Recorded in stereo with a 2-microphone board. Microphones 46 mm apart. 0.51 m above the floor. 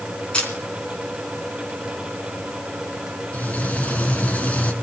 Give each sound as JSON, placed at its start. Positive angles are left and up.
{"t": 0.3, "sound": "a camera shutter", "side_deg": 25, "distance_m": 3.5}
{"t": 3.3, "sound": "frying", "side_deg": 30, "distance_m": 1.7}